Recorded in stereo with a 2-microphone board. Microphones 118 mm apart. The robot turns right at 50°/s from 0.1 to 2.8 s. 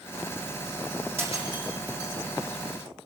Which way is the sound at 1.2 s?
20° right (ahead or behind).